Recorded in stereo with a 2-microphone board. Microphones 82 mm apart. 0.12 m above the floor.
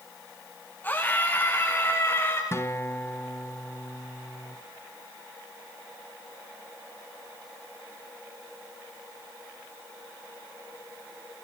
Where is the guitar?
30° left (ahead or behind), 1.7 m.